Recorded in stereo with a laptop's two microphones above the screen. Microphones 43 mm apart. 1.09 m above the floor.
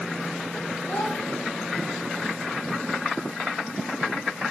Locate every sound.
0.9 s a child speaking: 25° left (ahead or behind), 6 m